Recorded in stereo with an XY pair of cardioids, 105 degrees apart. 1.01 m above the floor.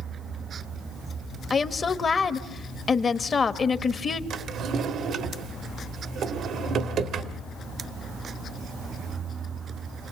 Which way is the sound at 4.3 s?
65° right.